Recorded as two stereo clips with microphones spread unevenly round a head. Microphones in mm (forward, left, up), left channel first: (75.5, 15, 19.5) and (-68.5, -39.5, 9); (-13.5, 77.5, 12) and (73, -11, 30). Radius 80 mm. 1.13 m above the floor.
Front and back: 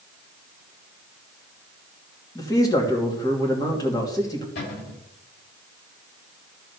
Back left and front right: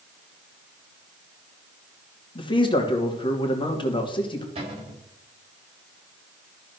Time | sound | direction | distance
2.4 | a man speaking | 90° left | 2.5 m
4.5 | a cupboard door | straight ahead | 7 m